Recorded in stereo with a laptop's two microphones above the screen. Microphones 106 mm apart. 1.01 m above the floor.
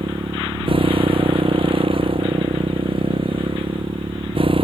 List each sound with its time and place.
0.0 s a motorcycle: 55° right (ahead or behind)